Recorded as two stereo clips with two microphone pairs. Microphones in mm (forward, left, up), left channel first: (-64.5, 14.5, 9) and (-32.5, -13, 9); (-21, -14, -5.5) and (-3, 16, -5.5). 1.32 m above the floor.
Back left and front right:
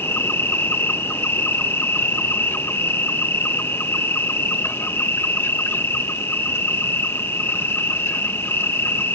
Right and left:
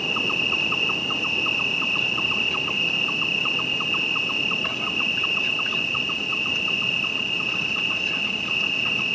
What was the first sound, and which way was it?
An insect, 160° left.